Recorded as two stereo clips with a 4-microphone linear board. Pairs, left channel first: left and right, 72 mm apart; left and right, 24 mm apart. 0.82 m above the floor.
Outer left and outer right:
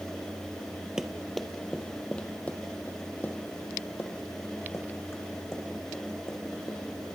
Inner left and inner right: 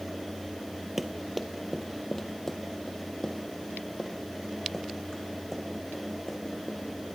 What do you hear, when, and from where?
1.0 s running footsteps: 10° right (ahead or behind), 1.1 m; by 6.8 s 40° left (ahead or behind), 4 m